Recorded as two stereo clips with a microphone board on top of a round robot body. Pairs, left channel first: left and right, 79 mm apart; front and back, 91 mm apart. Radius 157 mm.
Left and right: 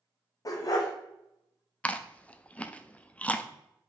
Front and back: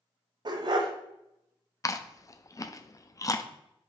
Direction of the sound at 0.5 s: 140° left.